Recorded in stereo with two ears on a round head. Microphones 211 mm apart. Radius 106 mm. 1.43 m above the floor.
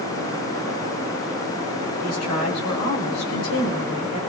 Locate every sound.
2.0 s a woman speaking: 85° left, 8 m